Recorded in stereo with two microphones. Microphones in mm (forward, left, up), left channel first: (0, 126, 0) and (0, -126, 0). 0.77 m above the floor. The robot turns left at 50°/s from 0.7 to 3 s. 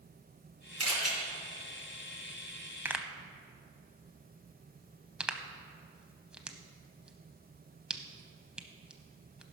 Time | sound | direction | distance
0.8 | a camera shutter | 70° right (ahead or behind) | 3.5 m
2.9 | a pop | 10° right (ahead or behind) | 0.7 m